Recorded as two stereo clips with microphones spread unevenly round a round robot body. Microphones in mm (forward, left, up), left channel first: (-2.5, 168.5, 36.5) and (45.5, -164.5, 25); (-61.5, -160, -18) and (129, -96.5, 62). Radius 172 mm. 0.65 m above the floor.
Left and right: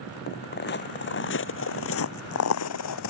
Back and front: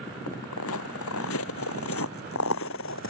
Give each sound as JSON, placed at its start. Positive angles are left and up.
{"t": 0.3, "sound": "footsteps", "azimuth_deg": 160}